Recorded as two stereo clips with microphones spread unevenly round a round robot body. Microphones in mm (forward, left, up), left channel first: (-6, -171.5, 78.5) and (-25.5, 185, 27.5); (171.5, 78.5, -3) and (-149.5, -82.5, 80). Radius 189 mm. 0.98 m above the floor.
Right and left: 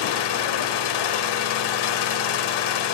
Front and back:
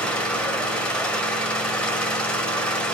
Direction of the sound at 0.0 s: 60° right.